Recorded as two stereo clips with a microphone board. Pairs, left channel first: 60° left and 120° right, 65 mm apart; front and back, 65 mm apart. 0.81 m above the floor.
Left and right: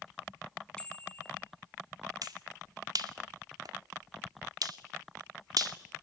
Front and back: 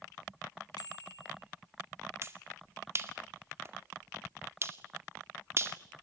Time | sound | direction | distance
0.8 | a bicycle bell | 15° right | 5 m
2.2 | a finger snap | 130° right | 2 m